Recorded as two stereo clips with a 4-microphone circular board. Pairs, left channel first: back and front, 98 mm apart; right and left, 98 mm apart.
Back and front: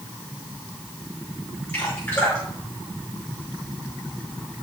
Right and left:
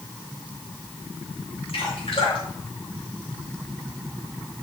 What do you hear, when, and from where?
1.7 s dripping: 110° right, 5 m